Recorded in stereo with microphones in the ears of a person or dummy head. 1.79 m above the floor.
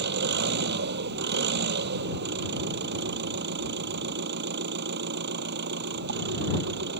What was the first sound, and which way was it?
An engine running, 60° right (ahead or behind).